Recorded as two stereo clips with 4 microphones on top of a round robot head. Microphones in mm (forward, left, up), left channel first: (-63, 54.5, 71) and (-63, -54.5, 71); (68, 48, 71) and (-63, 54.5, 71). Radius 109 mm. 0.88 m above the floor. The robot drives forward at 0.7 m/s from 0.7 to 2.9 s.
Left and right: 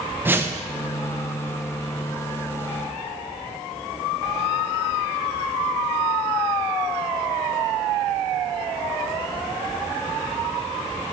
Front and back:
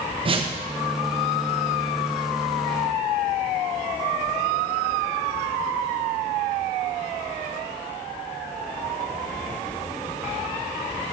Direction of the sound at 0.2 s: 155° right.